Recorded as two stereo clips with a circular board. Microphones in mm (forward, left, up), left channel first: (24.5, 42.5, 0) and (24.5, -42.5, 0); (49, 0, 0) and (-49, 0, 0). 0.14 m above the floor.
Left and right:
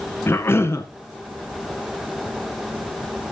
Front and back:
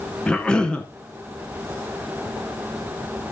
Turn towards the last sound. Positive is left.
turn(degrees=70)